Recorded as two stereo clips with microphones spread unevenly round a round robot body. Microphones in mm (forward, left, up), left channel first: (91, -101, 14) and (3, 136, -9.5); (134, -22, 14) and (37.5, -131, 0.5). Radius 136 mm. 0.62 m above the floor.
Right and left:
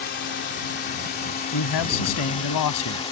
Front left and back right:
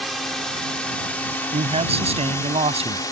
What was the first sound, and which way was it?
A drone, 40° right.